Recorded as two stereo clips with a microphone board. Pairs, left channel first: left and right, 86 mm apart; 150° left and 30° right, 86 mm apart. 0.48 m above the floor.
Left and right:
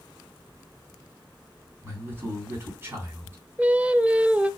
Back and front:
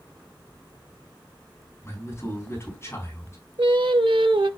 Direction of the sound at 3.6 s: 15° right.